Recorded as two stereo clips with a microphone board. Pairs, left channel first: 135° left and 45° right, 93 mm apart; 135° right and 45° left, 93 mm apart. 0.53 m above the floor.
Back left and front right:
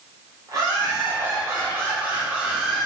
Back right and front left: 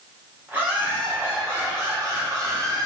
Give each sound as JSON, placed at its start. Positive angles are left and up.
{"t": 0.5, "sound": "laughter", "azimuth_deg": -15, "distance_m": 1.8}